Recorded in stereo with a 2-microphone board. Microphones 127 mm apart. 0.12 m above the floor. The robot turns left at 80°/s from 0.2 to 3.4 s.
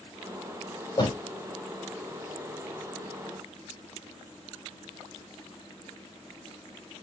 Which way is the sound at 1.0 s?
35° left (ahead or behind).